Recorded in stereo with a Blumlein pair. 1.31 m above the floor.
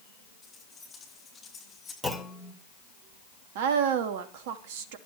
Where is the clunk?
Straight ahead, 2.5 m.